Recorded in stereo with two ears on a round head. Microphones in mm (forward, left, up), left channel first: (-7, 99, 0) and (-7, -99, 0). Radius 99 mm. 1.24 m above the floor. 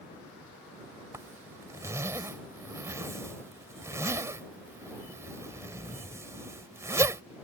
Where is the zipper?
15° right (ahead or behind).